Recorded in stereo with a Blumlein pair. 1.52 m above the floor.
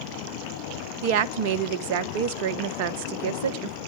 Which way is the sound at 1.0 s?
50° right.